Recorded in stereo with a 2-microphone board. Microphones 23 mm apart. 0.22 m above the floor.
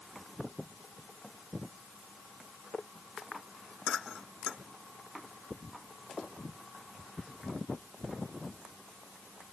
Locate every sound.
Only background noise.